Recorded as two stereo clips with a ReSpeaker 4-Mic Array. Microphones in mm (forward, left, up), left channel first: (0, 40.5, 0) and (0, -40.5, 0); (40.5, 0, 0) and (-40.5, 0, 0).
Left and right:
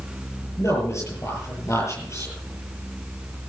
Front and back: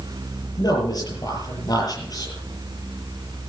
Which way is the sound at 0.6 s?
40° left.